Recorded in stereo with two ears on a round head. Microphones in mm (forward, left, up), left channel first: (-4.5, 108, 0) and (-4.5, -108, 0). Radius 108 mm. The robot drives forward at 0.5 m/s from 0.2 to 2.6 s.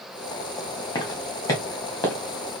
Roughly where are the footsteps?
Centre.